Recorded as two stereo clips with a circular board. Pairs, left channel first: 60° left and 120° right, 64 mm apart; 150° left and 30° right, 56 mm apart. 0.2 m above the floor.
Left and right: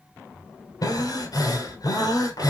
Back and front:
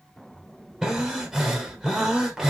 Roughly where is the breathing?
Ahead left.